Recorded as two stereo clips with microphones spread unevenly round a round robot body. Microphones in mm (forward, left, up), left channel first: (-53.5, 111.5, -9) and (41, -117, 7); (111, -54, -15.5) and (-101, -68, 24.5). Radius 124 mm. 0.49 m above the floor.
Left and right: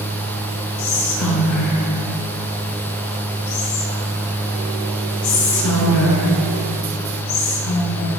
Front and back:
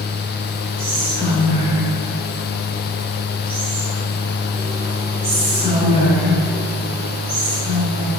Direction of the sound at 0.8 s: 105° left.